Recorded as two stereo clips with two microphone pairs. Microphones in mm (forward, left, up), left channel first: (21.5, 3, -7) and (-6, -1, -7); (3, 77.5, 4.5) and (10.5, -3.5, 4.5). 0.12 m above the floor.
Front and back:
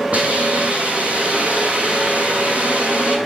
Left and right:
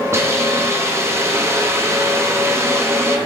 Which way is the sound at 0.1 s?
140° right.